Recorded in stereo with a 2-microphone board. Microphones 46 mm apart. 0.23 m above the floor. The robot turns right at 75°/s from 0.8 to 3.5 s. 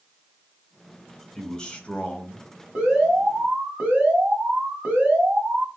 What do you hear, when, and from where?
1.4 s a man speaking: 15° left (ahead or behind), 1.0 m; by 2.5 s 20° left (ahead or behind), 1.0 m
2.8 s an alarm: 150° right, 1.6 m; by 5.7 s 95° right, 1.6 m